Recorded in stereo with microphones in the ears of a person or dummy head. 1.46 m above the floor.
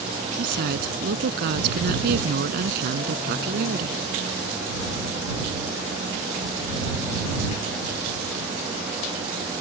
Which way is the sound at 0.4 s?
60° right (ahead or behind).